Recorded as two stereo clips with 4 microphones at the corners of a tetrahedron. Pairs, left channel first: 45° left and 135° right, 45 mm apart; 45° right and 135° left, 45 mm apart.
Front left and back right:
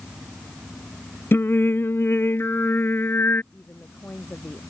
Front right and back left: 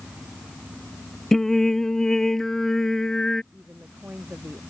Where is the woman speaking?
90° left.